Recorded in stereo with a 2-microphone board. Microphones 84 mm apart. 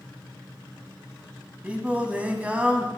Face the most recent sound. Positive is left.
turn(degrees=-15)  # may be behind; listen again after turning